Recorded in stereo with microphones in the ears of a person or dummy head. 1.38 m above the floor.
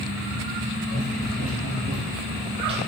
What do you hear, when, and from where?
0.9 s running footsteps: 45° right (ahead or behind), 1.9 m; by 2.8 s 30° right (ahead or behind), 1.8 m